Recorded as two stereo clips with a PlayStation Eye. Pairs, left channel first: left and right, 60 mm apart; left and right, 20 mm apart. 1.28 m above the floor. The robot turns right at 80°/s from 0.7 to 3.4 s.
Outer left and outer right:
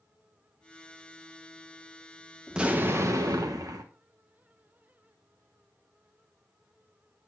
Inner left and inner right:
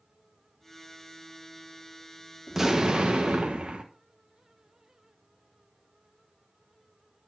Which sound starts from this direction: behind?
An explosion, at 2.5 s.